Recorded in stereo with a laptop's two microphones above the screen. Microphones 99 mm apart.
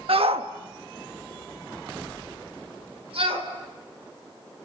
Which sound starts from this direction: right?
A shout, at 0.1 s.